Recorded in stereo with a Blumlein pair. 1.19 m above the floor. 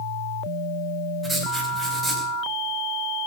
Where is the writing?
Straight ahead, 4.5 m.